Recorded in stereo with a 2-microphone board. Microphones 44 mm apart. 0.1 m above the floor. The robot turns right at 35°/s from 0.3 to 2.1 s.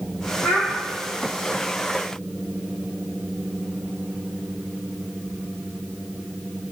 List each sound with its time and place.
0.4 s a child speaking: 75° left (ahead or behind), 2.5 m; by 0.7 s 70° left (ahead or behind), 2.5 m